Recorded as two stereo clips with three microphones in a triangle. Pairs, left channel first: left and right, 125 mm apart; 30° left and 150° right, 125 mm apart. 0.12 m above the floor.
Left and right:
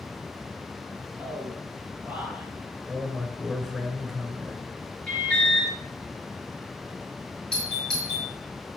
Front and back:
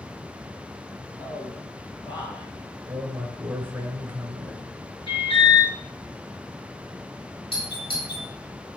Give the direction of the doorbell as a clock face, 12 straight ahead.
12 o'clock.